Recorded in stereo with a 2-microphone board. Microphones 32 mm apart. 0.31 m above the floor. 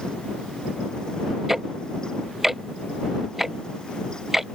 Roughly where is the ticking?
Centre.